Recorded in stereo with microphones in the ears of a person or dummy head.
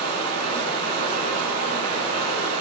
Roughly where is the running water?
Right.